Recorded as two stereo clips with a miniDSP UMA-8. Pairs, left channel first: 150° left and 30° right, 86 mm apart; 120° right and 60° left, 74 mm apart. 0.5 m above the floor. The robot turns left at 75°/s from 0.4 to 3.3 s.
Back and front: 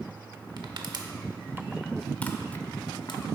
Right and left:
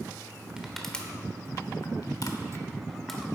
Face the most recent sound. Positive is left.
turn(degrees=140)